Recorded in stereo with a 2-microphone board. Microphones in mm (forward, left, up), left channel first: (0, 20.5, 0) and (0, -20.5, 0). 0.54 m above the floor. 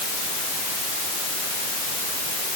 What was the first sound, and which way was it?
Only background noise.